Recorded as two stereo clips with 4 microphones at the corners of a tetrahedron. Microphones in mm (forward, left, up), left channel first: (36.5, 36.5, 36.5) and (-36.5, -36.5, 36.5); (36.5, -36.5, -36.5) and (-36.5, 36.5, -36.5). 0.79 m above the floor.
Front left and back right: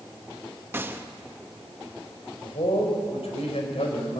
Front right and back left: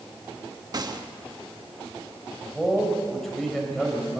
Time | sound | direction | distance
0.7 | a gunshot | 165° left | 1.0 m
2.4 | a man speaking | 40° left | 4 m